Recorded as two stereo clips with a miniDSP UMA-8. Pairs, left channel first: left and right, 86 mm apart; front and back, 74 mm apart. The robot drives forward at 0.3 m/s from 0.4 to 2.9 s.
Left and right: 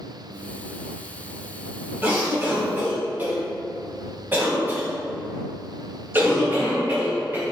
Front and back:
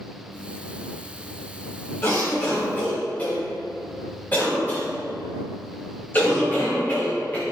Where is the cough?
35° right, 1.4 m; by 7.5 s 45° right, 1.3 m.